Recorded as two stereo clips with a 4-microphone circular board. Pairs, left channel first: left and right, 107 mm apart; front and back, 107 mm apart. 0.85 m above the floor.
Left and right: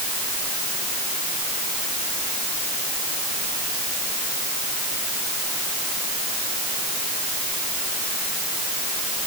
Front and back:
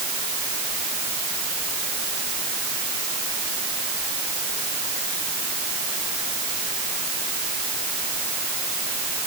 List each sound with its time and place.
Only background noise.